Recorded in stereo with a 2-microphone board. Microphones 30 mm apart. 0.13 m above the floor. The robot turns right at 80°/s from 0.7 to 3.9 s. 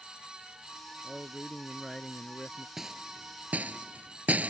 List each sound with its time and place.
1.0 s a man speaking: 40° right; by 2.7 s 90° left
2.8 s a rattle: 10° right (ahead or behind); by 4.5 s 55° right (ahead or behind)